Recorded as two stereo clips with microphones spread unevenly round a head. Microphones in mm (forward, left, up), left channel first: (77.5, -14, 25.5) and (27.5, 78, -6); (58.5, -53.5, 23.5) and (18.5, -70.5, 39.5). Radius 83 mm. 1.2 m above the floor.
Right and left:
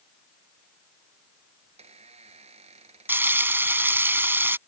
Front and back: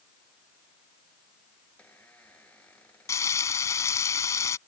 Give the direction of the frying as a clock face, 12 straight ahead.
11 o'clock.